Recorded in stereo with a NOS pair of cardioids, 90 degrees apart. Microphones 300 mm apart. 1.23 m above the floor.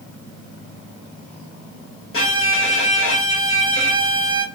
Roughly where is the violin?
Ahead left.